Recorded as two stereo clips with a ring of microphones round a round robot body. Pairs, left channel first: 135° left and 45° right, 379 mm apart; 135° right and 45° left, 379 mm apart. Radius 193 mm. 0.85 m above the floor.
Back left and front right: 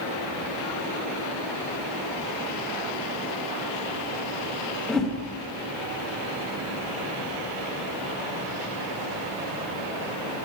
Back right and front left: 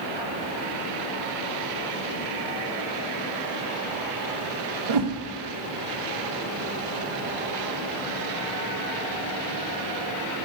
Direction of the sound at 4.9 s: 45° left.